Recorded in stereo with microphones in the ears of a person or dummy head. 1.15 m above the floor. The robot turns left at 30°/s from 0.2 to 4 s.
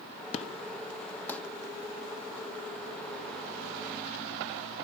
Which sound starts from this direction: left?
An explosion, at 0.3 s.